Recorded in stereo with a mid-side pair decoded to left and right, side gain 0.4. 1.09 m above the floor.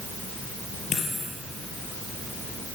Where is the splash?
No splash in this recording.